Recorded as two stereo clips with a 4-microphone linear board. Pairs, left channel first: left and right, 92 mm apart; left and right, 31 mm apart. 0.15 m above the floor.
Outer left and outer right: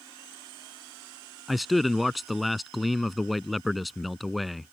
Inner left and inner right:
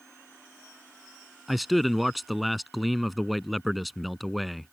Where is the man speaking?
Centre (ahead or behind).